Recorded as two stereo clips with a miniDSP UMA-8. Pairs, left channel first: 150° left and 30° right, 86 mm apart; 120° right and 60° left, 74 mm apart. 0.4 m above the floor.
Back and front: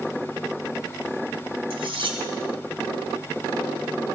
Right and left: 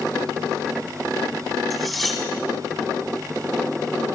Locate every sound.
1.7 s cutlery clinking: 30° right, 2 m